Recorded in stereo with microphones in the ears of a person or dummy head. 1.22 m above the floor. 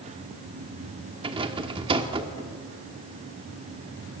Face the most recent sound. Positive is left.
turn(degrees=-30)  # may be behind; listen again after turning